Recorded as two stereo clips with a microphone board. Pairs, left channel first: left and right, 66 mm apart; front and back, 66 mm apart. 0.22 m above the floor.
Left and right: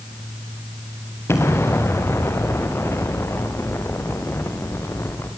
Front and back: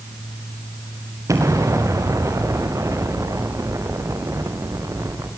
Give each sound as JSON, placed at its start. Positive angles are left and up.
{"t": 1.3, "sound": "an explosion", "azimuth_deg": 140, "distance_m": 5.0}